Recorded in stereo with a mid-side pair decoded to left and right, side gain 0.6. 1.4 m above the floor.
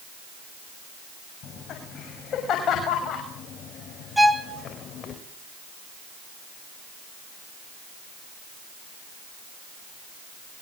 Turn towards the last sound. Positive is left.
turn(degrees=-5)